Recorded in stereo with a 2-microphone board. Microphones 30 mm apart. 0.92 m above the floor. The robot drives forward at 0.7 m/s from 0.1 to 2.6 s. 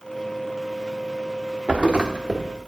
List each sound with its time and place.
1.7 s a thud: 45° right (ahead or behind), 0.9 m; by 2.5 s 30° right (ahead or behind), 1.4 m